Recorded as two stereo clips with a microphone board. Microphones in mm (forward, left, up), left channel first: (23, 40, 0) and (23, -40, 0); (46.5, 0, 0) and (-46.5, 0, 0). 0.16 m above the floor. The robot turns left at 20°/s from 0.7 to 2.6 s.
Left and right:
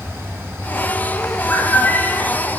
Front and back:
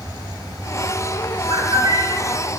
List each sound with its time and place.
1.5 s a bird: 160° left, 1.9 m; by 2.2 s 145° left, 1.9 m